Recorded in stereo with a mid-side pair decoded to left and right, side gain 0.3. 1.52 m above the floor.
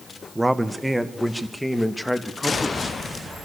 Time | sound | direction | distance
0.3 | a man speaking | 15° right | 1.4 m